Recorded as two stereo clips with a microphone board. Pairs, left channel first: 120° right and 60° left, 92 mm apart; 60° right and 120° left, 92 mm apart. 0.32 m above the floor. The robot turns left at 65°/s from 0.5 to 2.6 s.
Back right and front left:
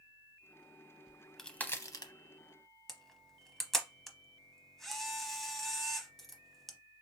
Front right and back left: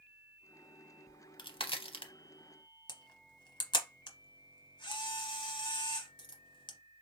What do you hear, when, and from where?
1.1 s a crack: 15° right, 0.6 m; by 2.1 s 85° right, 0.6 m
2.9 s a camera shutter: 30° right, 0.8 m